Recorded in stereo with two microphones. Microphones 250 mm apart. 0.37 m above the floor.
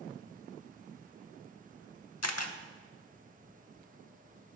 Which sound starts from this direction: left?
A camera shutter, at 2.2 s.